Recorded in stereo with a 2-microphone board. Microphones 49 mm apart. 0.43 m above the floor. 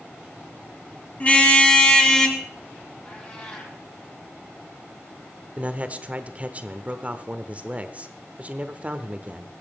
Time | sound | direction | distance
1.2 | a car horn | 25° left (ahead or behind) | 2 m
3.0 | a cat meowing | 25° left (ahead or behind) | 4.5 m
5.6 | a man speaking | 30° right (ahead or behind) | 1.0 m